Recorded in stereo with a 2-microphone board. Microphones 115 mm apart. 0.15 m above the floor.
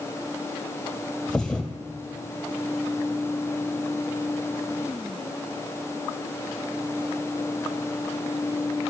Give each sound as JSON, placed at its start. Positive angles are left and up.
{"t": 1.3, "sound": "a thud", "side_deg": 10, "distance_m": 1.6}